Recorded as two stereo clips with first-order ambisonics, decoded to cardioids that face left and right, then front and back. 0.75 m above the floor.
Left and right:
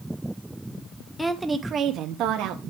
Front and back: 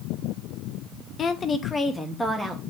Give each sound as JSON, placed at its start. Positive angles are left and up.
{"t": 1.2, "sound": "a woman speaking", "azimuth_deg": 20, "distance_m": 0.6}